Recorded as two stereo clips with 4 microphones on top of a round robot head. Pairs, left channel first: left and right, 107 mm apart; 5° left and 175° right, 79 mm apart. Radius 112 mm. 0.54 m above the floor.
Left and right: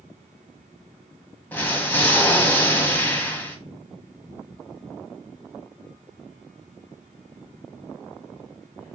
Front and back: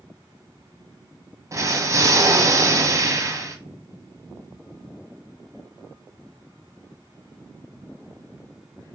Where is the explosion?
160° left, 1.1 m.